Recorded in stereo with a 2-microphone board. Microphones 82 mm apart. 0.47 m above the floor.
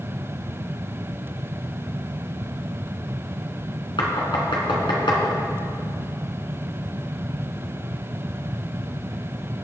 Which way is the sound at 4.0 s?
80° left.